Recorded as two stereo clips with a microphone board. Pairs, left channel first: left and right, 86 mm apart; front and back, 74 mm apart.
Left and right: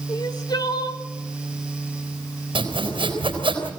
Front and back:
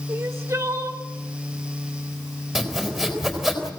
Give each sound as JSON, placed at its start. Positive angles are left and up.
{"t": 0.1, "sound": "crying", "azimuth_deg": 125, "distance_m": 1.8}
{"t": 2.5, "sound": "sawing", "azimuth_deg": -90, "distance_m": 4.5}